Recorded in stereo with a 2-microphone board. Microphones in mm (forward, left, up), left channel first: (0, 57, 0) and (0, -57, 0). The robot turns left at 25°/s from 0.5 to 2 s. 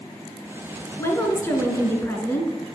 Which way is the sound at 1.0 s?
25° left (ahead or behind).